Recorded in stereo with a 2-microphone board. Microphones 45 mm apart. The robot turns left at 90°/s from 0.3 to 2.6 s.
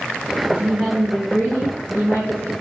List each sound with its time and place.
0.5 s a woman speaking: 140° right, 2 m; by 2.5 s 35° left, 2 m